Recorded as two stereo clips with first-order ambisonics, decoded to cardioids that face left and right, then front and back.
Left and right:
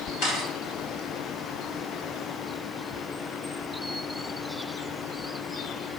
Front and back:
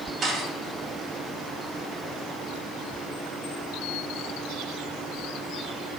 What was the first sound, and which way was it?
A camera shutter, 120° left.